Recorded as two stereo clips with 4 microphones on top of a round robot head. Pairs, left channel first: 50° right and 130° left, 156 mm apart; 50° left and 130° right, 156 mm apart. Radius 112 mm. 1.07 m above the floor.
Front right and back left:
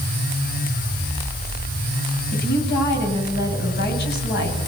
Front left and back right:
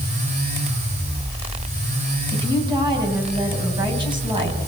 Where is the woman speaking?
70° right, 8.5 m.